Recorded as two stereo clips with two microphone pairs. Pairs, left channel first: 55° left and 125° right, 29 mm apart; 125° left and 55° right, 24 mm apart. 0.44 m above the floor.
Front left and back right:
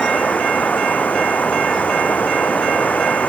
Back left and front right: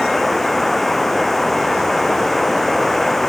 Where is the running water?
45° left.